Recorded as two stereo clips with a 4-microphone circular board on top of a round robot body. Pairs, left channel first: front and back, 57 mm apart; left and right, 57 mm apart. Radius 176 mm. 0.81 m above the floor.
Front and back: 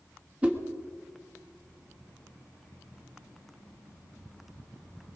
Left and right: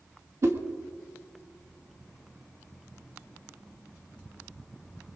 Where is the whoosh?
115° right, 1.7 m.